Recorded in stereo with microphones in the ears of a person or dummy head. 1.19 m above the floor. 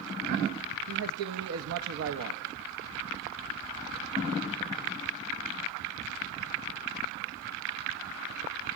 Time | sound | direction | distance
0.9 | a man speaking | 85° right | 1.3 m